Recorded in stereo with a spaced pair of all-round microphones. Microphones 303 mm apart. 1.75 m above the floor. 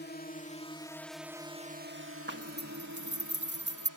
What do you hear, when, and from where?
0.0 s a drone: 35° left (ahead or behind); by 4.0 s 75° right (ahead or behind)
2.3 s a zipper: 35° right (ahead or behind)